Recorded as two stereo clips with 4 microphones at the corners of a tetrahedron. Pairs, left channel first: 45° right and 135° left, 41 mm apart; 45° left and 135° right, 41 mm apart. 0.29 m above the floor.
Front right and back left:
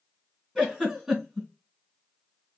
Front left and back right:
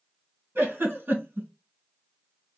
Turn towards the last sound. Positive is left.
turn(degrees=-150)